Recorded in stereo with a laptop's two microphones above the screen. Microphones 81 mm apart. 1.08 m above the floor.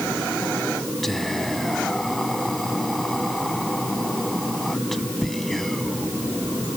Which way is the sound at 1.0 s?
5° left (ahead or behind).